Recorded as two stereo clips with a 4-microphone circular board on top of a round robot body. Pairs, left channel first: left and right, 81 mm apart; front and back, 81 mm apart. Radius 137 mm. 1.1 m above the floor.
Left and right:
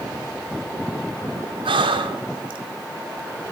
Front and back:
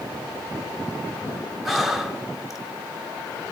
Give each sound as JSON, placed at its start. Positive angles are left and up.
{"t": 1.6, "sound": "breathing", "azimuth_deg": -95, "distance_m": 0.6}